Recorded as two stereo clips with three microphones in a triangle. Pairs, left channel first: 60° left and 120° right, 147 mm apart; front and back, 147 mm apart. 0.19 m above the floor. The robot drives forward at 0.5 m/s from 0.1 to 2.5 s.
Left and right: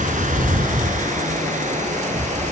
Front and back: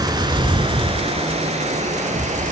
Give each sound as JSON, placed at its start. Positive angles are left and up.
{"t": 0.0, "sound": "running water", "azimuth_deg": -120, "distance_m": 1.3}